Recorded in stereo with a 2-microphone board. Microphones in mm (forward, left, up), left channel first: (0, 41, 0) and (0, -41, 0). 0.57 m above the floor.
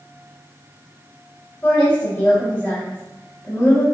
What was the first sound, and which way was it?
A woman speaking, 25° left (ahead or behind).